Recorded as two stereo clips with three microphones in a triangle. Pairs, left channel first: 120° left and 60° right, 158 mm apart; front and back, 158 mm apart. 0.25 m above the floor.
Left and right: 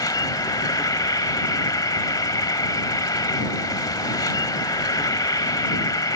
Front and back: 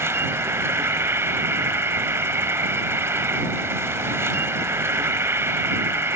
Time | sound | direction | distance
0.0 | an insect | 130° left | ?